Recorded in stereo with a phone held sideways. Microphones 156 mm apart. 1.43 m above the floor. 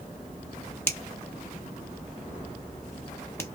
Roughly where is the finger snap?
Centre.